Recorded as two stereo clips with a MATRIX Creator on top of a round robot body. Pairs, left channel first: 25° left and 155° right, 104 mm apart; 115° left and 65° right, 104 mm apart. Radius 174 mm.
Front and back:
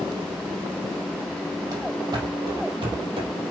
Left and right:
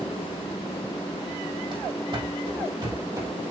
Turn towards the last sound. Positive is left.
turn(degrees=-125)